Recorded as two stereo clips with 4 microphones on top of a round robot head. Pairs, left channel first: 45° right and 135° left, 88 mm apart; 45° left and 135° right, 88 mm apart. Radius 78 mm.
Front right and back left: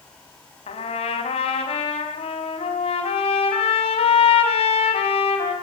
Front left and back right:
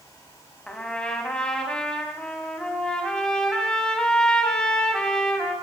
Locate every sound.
0.7 s a trumpet: 35° right, 4.5 m